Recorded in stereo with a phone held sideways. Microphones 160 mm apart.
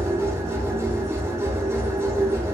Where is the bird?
No bird in this recording.